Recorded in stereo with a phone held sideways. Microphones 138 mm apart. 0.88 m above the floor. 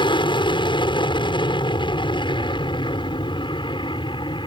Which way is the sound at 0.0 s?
40° left (ahead or behind).